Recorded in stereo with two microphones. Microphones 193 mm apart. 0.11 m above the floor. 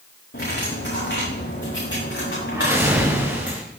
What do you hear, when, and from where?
0.3 s cutlery clinking: 70° left (ahead or behind), 8 m
2.5 s a whoosh: 15° right (ahead or behind), 6 m